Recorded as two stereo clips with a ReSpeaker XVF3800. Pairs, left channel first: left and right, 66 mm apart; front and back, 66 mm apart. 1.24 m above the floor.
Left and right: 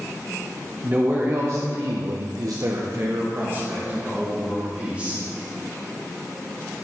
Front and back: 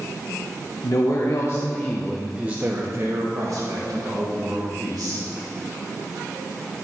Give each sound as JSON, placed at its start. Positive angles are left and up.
{"t": 0.8, "sound": "a man speaking", "azimuth_deg": -25, "distance_m": 1.1}